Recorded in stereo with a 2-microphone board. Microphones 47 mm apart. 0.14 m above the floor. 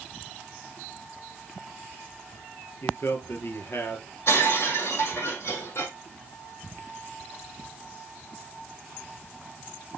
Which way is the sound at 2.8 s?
60° left (ahead or behind).